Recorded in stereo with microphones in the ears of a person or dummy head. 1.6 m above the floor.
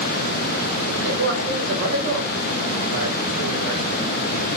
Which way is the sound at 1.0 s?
85° right.